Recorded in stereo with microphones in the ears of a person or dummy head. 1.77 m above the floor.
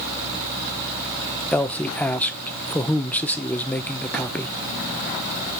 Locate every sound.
1.5 s a man speaking: centre (ahead or behind), 0.7 m